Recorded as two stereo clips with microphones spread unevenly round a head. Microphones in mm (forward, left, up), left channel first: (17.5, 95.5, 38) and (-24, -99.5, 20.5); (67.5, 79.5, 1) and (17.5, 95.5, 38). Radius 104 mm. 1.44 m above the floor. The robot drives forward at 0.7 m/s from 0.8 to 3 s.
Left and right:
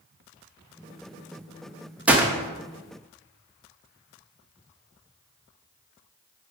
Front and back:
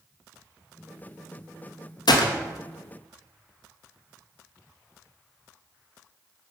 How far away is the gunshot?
About 1.1 m.